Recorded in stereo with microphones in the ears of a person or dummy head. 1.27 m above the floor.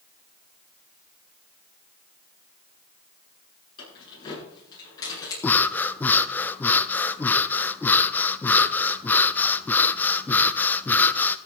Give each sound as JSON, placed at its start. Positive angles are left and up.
{"t": 3.8, "sound": "keys jangling", "side_deg": 30, "distance_m": 10.0}
{"t": 5.4, "sound": "breathing", "side_deg": 10, "distance_m": 0.6}